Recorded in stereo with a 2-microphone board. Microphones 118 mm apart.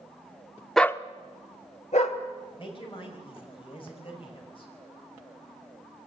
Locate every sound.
0.8 s a dog barking: centre (ahead or behind), 0.5 m; by 2.2 s 75° left (ahead or behind), 1.8 m
2.6 s a woman speaking: 45° left (ahead or behind), 5.5 m